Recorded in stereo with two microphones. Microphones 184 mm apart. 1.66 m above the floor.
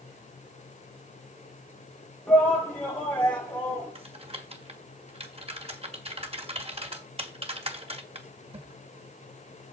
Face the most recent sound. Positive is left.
turn(degrees=-35)  # may be behind; listen again after turning